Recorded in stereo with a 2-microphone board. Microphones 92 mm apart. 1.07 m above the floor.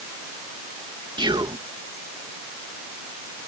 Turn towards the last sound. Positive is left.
turn(degrees=-55)  # may be behind; listen again after turning